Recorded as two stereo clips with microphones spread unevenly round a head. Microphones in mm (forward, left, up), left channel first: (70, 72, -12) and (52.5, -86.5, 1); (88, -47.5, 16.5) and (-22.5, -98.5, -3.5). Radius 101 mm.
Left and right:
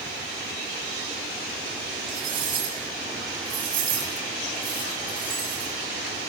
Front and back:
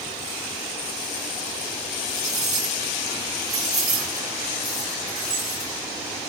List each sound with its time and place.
2.1 s cutlery clinking: 130° right, 6 m